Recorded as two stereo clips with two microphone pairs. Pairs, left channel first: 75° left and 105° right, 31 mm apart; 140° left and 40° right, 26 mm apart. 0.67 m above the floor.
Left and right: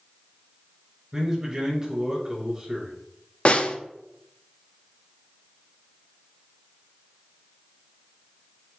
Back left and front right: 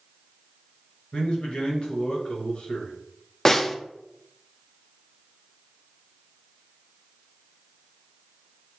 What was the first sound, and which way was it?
A man speaking, straight behind.